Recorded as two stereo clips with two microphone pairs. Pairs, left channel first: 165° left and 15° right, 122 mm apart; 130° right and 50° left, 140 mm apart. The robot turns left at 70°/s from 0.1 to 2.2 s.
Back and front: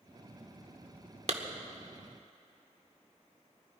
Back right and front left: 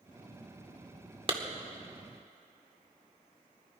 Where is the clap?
5° left, 1.3 m; by 1.4 s straight ahead, 1.3 m.